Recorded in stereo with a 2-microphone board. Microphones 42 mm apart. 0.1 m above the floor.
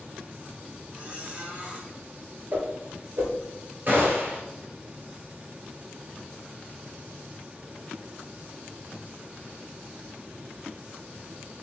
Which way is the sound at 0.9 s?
30° right (ahead or behind).